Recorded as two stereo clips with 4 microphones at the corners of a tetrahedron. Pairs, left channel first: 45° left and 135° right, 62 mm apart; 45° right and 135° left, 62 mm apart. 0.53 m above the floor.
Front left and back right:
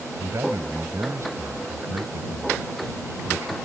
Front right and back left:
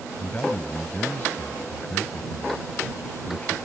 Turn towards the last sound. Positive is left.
turn(degrees=-105)